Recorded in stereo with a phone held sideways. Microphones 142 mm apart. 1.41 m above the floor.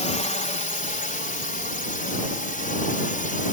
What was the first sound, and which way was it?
A drone, 55° left (ahead or behind).